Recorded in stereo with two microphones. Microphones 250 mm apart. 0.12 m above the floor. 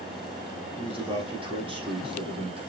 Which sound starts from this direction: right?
A man speaking, at 0.8 s.